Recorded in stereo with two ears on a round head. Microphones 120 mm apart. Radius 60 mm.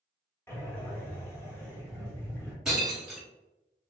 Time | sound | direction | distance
0.5 | breathing | 15° left (ahead or behind) | 1.1 m
2.6 | breaking glass | 5° right (ahead or behind) | 1.3 m